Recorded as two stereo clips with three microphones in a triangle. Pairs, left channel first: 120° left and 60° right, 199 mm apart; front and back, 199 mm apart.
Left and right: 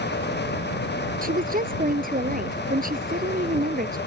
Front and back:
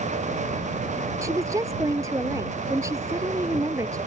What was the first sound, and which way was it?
A woman speaking, 105° right.